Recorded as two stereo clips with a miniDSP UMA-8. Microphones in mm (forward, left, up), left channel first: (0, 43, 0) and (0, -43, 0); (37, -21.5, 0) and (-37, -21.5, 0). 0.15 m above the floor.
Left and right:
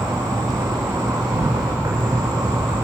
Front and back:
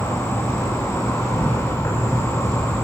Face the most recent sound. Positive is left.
turn(degrees=-55)